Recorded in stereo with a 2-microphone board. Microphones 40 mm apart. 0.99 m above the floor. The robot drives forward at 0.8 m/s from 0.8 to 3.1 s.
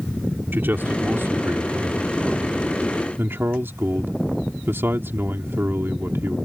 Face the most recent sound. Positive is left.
turn(degrees=-75)  # may be behind; listen again after turning